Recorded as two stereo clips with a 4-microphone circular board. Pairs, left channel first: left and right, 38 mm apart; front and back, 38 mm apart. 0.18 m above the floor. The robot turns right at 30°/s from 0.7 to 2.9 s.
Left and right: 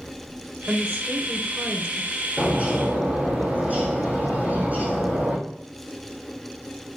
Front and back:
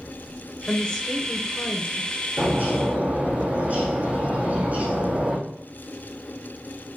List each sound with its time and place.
0.7 s a woman speaking: 75° right, 2.0 m; by 2.2 s 30° right, 2.0 m
2.4 s a bird: 150° right, 4 m; by 5.4 s 135° right, 4 m